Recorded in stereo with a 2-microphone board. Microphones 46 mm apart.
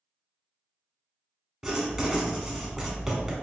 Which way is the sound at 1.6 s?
5° right (ahead or behind).